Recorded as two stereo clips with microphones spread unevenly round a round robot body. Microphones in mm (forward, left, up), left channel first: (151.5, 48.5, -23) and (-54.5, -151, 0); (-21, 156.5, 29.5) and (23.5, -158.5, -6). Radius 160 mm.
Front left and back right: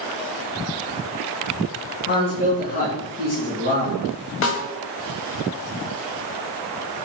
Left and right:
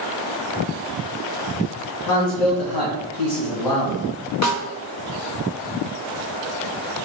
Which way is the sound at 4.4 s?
65° left.